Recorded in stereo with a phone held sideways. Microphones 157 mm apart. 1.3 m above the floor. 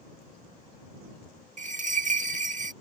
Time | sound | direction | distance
1.6 | a bell | 50° right (ahead or behind) | ?